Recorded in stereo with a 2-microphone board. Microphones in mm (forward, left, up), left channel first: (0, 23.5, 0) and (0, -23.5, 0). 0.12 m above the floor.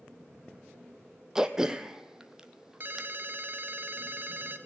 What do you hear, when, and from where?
1.4 s throat clearing: 10° right (ahead or behind), 0.7 m
2.8 s a ringtone: 50° right (ahead or behind), 0.9 m